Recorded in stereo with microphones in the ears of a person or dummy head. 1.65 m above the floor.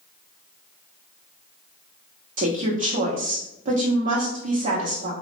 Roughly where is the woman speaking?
Right.